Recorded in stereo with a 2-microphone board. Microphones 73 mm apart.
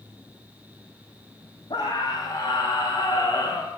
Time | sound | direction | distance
1.7 | a scream | 80° left | 8.5 m